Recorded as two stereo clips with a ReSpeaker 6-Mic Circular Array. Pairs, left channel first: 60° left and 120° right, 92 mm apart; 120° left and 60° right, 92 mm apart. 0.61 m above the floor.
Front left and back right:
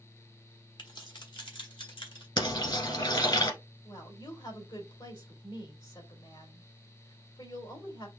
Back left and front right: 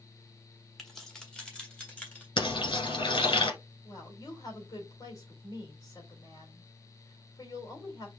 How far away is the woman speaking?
About 2.5 m.